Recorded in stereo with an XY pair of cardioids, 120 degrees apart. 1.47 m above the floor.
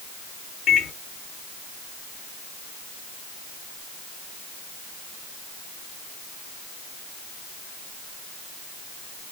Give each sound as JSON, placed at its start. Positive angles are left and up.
{"t": 0.7, "sound": "a microwave", "azimuth_deg": 60, "distance_m": 2.0}